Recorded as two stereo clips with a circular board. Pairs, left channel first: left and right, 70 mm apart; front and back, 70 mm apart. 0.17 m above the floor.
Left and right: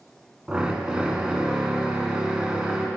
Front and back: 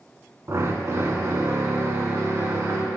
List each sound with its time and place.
0.5 s a drill: 160° right, 0.8 m